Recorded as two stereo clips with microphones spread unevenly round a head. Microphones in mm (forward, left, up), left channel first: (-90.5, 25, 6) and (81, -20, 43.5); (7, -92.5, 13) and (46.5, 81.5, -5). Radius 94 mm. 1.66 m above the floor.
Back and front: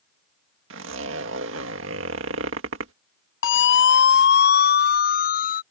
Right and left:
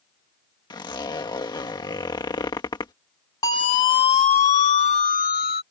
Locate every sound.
0.7 s a zipper: 35° right
3.4 s a siren: 175° right; by 5.6 s 150° right